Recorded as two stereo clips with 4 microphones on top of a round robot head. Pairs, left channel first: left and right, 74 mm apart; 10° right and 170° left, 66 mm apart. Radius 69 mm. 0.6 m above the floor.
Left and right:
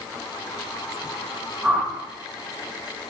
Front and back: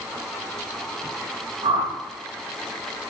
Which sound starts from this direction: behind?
A whoosh, at 1.6 s.